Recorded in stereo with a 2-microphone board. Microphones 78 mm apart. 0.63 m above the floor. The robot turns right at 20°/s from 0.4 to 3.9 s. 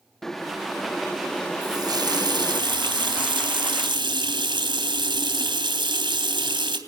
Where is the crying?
I don't hear crying.